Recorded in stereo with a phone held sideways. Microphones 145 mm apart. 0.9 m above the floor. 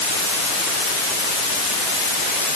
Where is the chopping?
No chopping in this recording.